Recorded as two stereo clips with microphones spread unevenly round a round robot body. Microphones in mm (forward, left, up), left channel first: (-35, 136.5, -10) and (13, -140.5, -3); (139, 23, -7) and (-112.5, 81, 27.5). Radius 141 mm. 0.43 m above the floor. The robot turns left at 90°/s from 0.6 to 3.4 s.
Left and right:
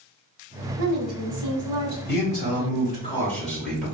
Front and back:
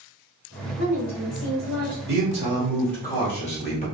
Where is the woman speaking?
50° right, 1.3 m; by 2.0 s 155° right, 1.3 m.